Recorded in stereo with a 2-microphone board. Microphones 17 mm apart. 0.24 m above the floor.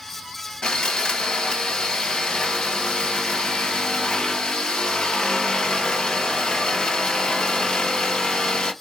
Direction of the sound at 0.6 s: 80° left.